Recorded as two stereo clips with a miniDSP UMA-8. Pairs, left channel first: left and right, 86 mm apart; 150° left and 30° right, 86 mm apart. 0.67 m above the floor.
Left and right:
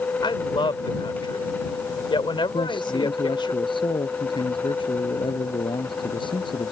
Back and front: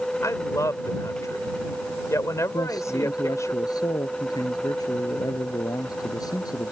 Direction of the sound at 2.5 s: 110° left.